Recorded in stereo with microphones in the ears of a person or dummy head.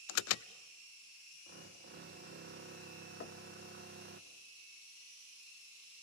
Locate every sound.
0.1 s an alarm: 70° left (ahead or behind), 0.6 m
1.5 s a drill: 55° right (ahead or behind), 1.4 m
3.2 s knocking: 45° left (ahead or behind), 1.0 m